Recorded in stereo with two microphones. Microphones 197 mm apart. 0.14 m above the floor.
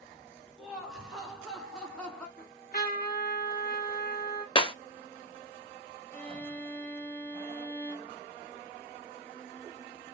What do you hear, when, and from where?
0.6 s laughter: 5° right (ahead or behind), 2.5 m; by 2.3 s 5° left (ahead or behind), 1.8 m
2.4 s a trumpet: 45° left (ahead or behind), 2.5 m
4.5 s breaking glass: 25° left (ahead or behind), 0.5 m
6.1 s a violin: 10° left (ahead or behind), 0.7 m